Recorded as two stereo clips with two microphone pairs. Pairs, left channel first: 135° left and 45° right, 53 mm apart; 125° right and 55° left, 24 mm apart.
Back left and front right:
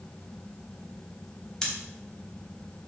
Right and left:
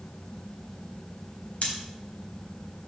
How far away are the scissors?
About 4 m.